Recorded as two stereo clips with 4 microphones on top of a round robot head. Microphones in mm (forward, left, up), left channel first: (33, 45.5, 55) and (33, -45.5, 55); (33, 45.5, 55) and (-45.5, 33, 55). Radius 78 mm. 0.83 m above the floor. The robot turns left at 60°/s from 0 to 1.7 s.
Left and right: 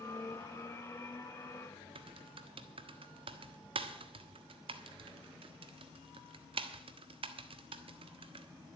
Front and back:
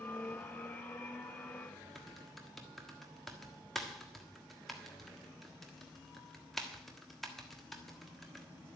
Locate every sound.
1.9 s typing on a keyboard: 80° right, 1.4 m